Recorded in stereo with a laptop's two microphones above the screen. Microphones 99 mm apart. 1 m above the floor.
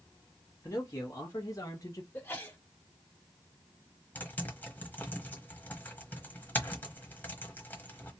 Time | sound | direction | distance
0.6 | a man speaking | 30° left (ahead or behind) | 1.3 m
2.1 | a sneeze | 20° left (ahead or behind) | 1.9 m
4.2 | typing on a keyboard | 20° left (ahead or behind) | 1.0 m